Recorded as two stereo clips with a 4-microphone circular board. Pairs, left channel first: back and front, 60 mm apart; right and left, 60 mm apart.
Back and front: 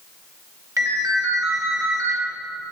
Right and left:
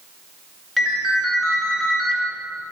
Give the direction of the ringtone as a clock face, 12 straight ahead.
12 o'clock.